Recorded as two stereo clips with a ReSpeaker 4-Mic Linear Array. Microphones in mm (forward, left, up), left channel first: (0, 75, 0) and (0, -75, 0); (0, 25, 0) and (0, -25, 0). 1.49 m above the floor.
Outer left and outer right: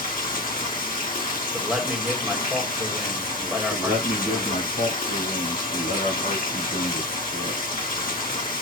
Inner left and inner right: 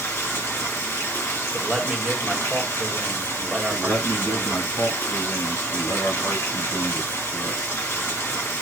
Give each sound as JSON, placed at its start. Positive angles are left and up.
{"t": 0.0, "sound": "running water", "side_deg": 65, "distance_m": 1.6}
{"t": 1.5, "sound": "a man speaking", "side_deg": -5, "distance_m": 1.4}
{"t": 3.7, "sound": "a man speaking", "side_deg": 90, "distance_m": 3.5}